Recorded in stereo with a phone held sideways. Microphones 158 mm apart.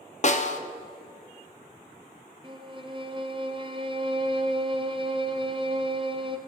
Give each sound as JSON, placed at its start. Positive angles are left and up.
{"t": 0.2, "sound": "a snare drum", "side_deg": 50, "distance_m": 0.7}
{"t": 2.4, "sound": "a violin", "side_deg": -30, "distance_m": 0.8}